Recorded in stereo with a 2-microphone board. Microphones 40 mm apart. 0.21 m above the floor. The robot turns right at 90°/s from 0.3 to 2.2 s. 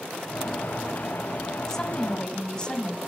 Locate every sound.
1.7 s a woman speaking: 15° left (ahead or behind), 1.0 m; by 3.0 s 25° left (ahead or behind), 1.0 m